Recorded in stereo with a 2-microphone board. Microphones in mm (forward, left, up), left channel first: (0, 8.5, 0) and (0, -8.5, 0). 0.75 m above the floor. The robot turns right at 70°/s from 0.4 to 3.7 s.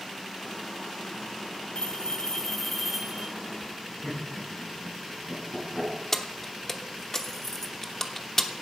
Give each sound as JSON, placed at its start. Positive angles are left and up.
{"t": 1.8, "sound": "a bell", "azimuth_deg": 105, "distance_m": 1.6}
{"t": 4.0, "sound": "laughter", "side_deg": 60, "distance_m": 7.0}
{"t": 6.1, "sound": "keys jangling", "side_deg": 20, "distance_m": 1.0}